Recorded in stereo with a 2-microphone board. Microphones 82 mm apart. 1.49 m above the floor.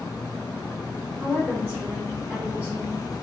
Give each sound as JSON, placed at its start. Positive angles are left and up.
{"t": 1.2, "sound": "a woman speaking", "side_deg": -30, "distance_m": 0.9}